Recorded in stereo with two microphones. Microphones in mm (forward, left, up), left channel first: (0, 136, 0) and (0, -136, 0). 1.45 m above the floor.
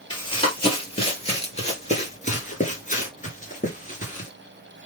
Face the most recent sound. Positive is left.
turn(degrees=30)  # may be behind; listen again after turning